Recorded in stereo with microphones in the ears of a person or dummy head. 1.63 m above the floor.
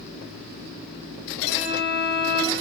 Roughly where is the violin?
Right.